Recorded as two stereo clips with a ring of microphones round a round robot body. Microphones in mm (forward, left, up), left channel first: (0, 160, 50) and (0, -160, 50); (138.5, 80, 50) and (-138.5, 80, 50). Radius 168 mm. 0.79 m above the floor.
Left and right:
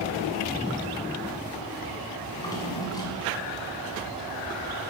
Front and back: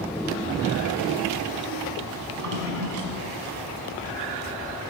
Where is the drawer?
170° left, 1.5 m.